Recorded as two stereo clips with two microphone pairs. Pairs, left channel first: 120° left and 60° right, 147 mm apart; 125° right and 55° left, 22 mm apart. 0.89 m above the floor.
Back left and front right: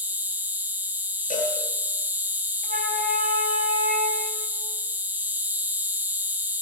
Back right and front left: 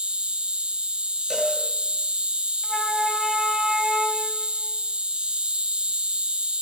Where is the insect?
15° left, 1.5 m.